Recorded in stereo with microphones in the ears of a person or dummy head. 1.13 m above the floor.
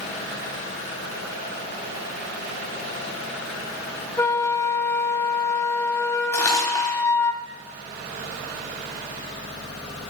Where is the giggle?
No giggle in this recording.